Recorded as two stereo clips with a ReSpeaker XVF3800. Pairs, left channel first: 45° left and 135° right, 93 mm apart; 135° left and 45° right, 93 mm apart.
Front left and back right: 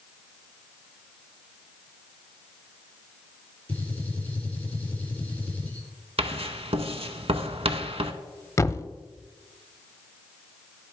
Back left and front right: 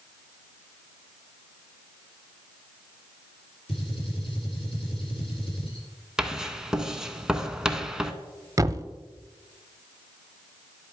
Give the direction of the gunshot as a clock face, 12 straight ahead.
8 o'clock.